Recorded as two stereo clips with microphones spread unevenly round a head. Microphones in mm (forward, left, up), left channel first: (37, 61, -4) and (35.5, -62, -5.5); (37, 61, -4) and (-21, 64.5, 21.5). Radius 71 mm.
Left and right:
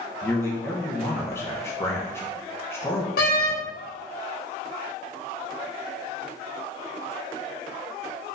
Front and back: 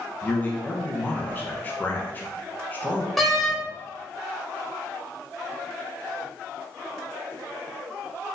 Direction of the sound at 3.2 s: 90° left.